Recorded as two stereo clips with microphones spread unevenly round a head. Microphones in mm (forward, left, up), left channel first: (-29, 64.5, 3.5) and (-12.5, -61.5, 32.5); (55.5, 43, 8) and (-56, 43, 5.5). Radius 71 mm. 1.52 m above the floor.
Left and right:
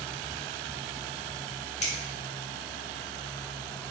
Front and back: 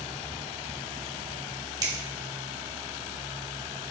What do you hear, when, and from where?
1.8 s a finger snap: 130° left, 3.5 m